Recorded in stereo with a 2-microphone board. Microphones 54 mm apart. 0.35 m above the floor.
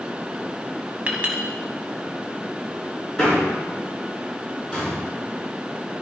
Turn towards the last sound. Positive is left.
turn(degrees=10)  # may be behind; listen again after turning